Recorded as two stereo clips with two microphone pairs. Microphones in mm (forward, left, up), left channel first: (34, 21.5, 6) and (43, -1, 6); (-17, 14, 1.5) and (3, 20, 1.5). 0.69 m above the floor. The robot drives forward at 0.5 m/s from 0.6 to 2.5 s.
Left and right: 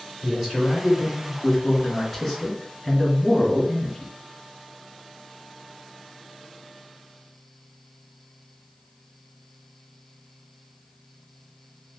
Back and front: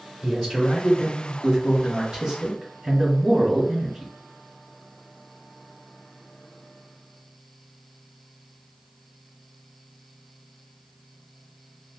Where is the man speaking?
25° left, 1.8 m; by 4.1 s 55° left, 1.3 m.